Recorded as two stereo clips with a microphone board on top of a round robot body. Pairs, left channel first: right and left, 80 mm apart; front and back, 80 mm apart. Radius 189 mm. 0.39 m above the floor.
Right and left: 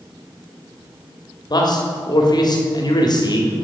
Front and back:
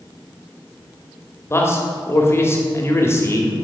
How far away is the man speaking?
About 2.5 m.